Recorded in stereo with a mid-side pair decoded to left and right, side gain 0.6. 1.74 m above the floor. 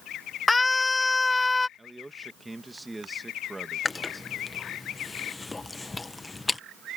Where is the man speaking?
10° right.